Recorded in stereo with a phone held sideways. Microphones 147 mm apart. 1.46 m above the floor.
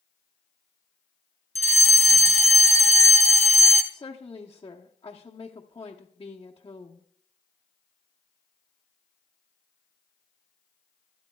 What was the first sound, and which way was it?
A fire alarm, 55° right (ahead or behind).